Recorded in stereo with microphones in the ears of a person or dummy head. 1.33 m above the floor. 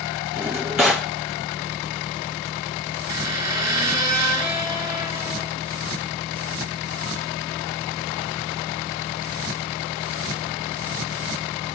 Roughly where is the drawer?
Centre.